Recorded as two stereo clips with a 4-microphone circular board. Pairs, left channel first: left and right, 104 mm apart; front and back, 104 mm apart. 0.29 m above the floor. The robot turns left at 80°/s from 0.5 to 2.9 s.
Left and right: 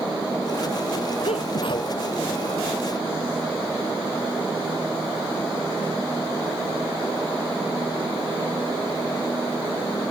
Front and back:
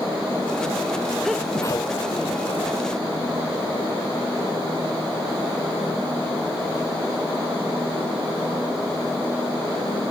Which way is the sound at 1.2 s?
90° left.